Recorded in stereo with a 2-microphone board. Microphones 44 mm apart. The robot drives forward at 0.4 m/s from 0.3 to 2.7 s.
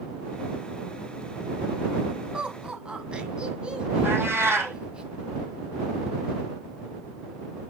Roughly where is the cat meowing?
Right.